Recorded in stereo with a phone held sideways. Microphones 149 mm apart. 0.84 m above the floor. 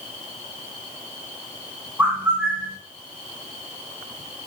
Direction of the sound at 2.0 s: 10° right (ahead or behind).